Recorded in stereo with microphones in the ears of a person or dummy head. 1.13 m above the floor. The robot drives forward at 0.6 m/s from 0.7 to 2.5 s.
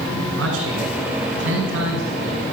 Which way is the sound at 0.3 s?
70° right (ahead or behind).